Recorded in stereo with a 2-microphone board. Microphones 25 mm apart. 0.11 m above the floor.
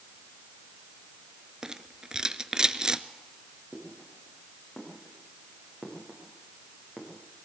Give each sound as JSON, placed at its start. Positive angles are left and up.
{"t": 1.6, "sound": "a rattle", "side_deg": -30, "distance_m": 0.7}
{"t": 3.7, "sound": "footsteps", "side_deg": 10, "distance_m": 9.5}